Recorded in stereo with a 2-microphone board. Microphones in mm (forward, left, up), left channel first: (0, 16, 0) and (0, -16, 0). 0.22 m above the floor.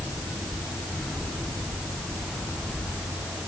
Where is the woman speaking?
No woman speaking in this recording.